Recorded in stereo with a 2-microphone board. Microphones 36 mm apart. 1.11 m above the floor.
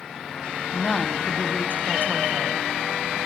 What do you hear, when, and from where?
0.7 s a woman speaking: 40° left (ahead or behind), 0.6 m